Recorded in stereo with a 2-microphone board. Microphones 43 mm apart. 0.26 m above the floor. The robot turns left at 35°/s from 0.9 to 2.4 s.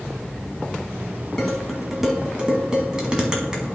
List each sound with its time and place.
1.4 s dishes clattering: 10° left (ahead or behind), 1.5 m; by 3.8 s 20° right (ahead or behind), 1.5 m